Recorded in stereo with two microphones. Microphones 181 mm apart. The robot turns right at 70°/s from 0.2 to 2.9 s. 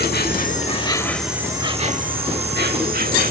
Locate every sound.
0.0 s an insect: 105° left; by 3.3 s 65° right